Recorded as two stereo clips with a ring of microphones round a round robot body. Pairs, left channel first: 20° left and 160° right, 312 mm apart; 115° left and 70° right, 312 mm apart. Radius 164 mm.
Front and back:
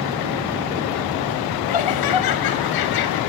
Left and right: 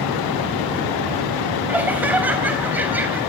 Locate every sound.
1.7 s laughter: 15° left, 4 m